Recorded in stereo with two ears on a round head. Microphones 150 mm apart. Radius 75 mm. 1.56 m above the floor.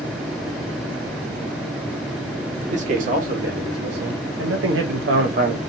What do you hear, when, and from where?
2.6 s a man speaking: 45° right (ahead or behind), 1.4 m; by 5.6 s 55° right (ahead or behind), 1.0 m